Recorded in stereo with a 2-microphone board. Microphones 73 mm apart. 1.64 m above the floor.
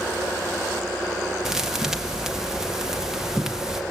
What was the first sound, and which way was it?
A thud, 10° right (ahead or behind).